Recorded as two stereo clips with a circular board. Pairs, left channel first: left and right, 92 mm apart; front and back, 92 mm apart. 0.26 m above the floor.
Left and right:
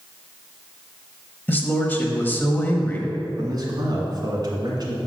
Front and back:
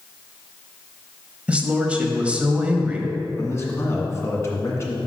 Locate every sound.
1.5 s a man speaking: 120° left, 1.0 m
3.4 s a man speaking: 55° right, 2.0 m